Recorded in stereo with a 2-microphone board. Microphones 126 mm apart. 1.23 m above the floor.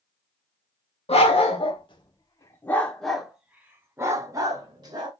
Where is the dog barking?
55° left (ahead or behind), 1.3 m; by 5.1 s 35° right (ahead or behind), 1.7 m.